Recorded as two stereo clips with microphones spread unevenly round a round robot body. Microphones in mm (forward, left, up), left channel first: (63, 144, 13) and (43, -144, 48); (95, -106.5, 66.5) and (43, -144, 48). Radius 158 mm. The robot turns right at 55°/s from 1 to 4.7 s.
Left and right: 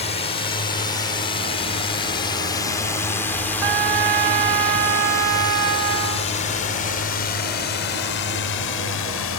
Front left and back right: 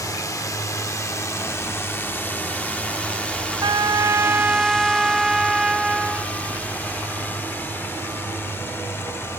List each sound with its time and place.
0.0 s a drone: 40° left; by 9.4 s 100° left
3.6 s a trumpet: 120° right; by 6.3 s 60° right